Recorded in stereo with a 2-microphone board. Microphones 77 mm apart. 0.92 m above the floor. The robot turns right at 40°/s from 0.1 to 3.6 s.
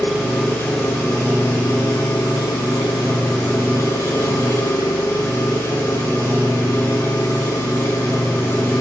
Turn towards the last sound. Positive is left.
turn(degrees=145)